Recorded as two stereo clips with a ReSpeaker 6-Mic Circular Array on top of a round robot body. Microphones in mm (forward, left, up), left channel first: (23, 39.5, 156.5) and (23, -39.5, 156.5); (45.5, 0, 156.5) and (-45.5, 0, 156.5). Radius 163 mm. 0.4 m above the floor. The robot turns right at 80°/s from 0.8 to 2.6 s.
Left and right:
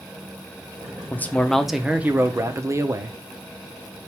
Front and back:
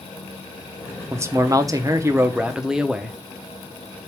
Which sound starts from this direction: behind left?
A man speaking, at 1.1 s.